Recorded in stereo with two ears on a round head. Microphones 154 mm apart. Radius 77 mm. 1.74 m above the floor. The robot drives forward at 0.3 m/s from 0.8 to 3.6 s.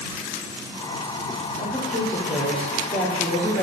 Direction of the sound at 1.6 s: 25° left (ahead or behind).